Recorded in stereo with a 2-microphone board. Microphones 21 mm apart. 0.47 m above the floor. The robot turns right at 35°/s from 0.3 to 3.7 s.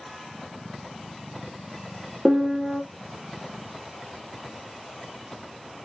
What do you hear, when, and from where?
2.2 s a piano: 15° right (ahead or behind), 0.7 m; by 2.8 s centre (ahead or behind), 0.7 m